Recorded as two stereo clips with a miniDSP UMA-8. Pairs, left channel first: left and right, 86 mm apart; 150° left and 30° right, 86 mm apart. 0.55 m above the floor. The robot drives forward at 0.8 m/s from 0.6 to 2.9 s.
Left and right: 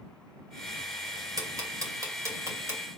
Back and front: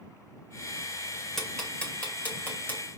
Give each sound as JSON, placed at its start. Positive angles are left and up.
{"t": 1.4, "sound": "ticking", "azimuth_deg": -125, "distance_m": 2.0}